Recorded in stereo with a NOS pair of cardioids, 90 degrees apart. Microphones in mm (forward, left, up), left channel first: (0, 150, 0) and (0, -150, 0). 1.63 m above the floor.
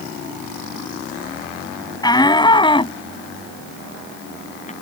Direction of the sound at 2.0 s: 15° left.